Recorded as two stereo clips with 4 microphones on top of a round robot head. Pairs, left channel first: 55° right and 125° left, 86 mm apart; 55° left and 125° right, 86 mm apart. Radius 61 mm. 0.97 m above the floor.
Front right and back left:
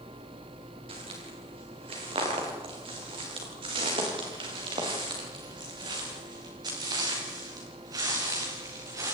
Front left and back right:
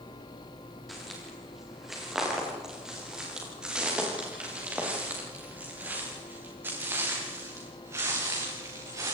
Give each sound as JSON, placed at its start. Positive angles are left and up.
{"t": 0.9, "sound": "footsteps", "azimuth_deg": 145, "distance_m": 8.0}